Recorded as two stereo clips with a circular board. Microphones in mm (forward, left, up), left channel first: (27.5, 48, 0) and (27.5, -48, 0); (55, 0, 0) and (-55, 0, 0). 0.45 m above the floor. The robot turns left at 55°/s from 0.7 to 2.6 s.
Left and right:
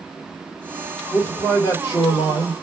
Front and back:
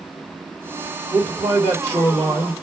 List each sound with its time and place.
1.1 s a man speaking: 140° left, 1.9 m; by 2.5 s 65° left, 1.9 m